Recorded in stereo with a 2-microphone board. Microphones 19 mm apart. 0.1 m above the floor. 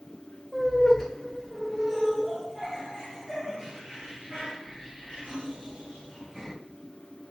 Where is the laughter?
15° left (ahead or behind), 1.7 m; by 6.5 s 65° right (ahead or behind), 3 m.